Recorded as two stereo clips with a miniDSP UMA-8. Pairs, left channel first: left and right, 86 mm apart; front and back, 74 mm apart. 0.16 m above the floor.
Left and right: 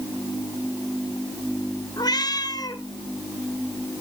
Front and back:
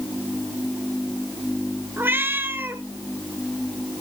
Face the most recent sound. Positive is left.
turn(degrees=120)